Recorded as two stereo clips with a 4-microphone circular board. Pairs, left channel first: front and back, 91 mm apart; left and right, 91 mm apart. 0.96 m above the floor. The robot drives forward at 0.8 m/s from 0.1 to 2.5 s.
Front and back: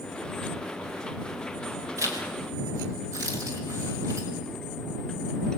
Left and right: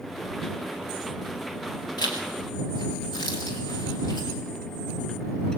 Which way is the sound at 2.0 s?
125° left.